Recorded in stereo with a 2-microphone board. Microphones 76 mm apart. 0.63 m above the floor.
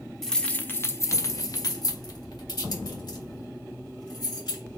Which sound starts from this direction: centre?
Keys jangling, at 0.2 s.